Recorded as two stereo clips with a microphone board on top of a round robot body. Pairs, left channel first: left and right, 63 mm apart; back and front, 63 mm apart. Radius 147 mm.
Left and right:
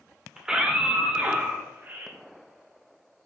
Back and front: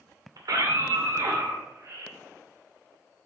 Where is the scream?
10° right, 2.5 m; by 2.1 s 35° right, 3 m.